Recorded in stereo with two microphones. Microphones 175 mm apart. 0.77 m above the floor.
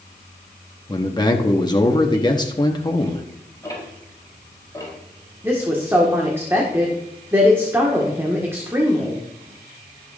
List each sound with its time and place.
0.9 s a man speaking: 25° left (ahead or behind), 1.0 m
3.6 s ticking: 20° left (ahead or behind), 4 m
5.4 s a woman speaking: 15° right (ahead or behind), 1.7 m